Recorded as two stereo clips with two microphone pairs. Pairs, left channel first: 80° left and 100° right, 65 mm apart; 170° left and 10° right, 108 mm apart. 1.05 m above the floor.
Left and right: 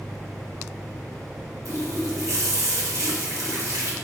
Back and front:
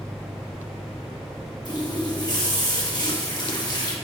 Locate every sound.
1.6 s a running tap: 140° right, 1.2 m